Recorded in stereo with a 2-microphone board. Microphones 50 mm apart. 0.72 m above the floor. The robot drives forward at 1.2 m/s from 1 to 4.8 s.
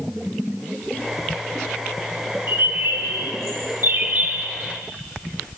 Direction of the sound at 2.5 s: 50° right (ahead or behind).